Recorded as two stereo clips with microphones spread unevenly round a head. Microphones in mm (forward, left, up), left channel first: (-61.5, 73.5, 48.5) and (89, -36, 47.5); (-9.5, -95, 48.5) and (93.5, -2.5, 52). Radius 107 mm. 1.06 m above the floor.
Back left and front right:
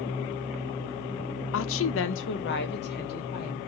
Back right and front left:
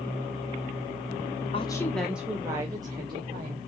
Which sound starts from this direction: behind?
A woman speaking, at 1.5 s.